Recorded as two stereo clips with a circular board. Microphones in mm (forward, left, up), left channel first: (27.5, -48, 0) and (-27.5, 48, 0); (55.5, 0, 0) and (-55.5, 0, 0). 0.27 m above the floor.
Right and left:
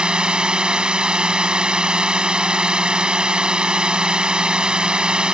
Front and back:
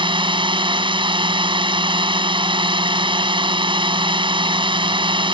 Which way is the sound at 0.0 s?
160° right.